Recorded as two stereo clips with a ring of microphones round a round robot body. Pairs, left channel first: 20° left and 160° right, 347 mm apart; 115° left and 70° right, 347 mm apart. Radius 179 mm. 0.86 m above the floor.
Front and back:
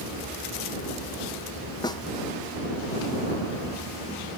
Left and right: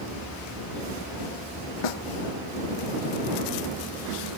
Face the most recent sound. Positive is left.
turn(degrees=100)